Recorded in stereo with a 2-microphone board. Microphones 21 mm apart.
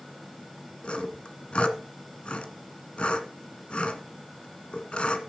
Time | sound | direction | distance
0.8 | sawing | 60° left (ahead or behind) | 1.8 m